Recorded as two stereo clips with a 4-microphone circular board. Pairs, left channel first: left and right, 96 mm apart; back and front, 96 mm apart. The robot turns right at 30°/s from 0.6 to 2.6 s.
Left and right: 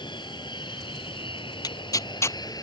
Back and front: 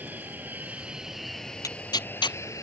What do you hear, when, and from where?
0.0 s an aircraft: 70° left; by 2.6 s 130° left
1.6 s tearing paper: 130° left; by 2.4 s 155° left